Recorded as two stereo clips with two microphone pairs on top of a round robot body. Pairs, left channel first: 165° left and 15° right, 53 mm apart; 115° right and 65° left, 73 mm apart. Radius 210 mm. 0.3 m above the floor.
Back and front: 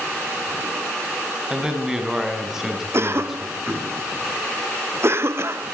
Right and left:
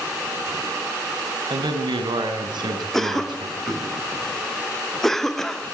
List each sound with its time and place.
1.5 s a man speaking: 65° left, 4 m; by 3.9 s 70° left, 5.5 m
2.9 s a cough: 35° right, 1.7 m